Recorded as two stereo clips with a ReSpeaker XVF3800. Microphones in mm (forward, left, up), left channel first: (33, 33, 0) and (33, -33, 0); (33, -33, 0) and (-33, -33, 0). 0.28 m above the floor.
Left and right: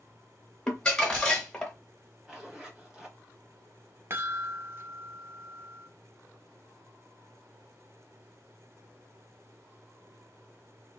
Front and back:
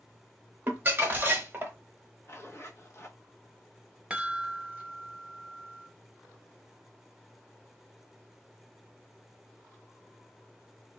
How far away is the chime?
About 0.6 m.